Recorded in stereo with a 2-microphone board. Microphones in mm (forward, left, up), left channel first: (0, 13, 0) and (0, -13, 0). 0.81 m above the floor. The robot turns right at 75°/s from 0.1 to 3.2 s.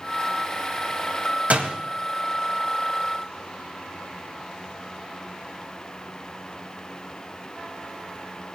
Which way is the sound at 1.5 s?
65° right (ahead or behind).